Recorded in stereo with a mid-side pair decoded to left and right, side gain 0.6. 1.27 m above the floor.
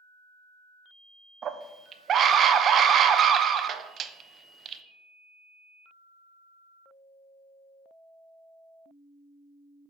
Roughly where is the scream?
Ahead right.